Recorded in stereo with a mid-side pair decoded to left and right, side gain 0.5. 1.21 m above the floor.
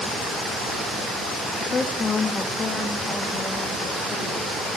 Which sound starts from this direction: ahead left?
A woman speaking, at 1.6 s.